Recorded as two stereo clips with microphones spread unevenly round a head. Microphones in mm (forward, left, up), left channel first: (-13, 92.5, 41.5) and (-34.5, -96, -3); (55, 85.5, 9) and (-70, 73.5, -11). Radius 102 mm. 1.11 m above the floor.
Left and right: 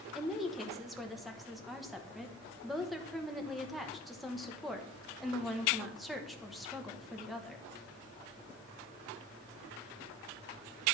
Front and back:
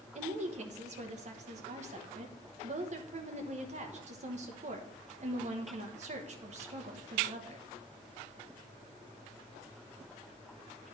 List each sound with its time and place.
0.1 s a woman speaking: straight behind, 1.1 m